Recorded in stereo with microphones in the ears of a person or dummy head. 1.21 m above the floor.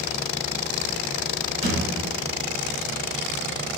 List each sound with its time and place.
1.6 s a thud: 40° right (ahead or behind), 1.2 m